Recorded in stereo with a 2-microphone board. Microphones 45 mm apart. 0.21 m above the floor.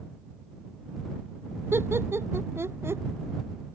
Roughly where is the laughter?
Right.